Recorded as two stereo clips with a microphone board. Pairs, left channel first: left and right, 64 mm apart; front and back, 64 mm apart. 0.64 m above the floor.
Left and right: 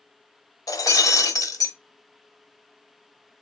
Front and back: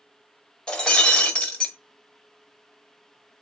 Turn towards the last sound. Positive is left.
turn(degrees=80)